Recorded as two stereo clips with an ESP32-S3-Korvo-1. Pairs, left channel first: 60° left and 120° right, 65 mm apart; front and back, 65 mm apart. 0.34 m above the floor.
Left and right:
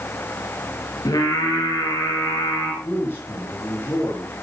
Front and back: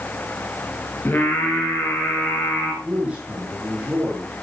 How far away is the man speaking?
About 4.5 m.